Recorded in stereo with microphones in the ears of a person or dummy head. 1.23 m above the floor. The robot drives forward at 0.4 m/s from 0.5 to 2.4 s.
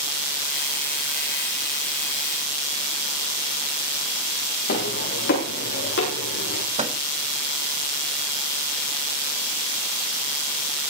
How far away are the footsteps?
About 9.5 m.